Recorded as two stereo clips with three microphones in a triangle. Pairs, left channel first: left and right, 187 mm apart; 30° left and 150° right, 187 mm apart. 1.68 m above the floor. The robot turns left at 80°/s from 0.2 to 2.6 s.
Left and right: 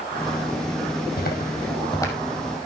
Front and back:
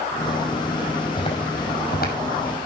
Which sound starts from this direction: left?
Footsteps, at 1.2 s.